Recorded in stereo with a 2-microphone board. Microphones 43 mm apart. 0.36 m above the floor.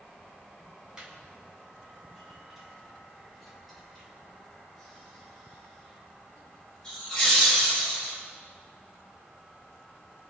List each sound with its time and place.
1.0 s laughter: 20° right (ahead or behind), 3.5 m; by 8.1 s 15° left (ahead or behind), 7 m